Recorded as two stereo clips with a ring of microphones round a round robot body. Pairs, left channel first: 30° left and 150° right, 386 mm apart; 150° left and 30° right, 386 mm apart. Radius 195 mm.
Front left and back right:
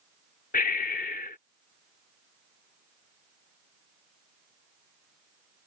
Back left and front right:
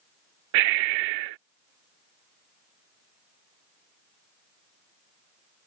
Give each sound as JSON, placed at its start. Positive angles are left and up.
{"t": 0.5, "sound": "breathing", "azimuth_deg": -40}